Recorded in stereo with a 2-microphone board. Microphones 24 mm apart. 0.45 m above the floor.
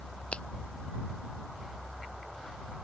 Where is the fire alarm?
No fire alarm in this recording.